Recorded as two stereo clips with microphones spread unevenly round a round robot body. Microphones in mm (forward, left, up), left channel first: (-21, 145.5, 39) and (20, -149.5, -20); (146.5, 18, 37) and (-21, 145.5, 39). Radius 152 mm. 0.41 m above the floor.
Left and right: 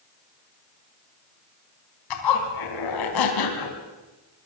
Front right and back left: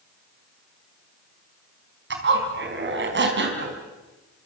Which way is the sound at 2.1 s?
115° left.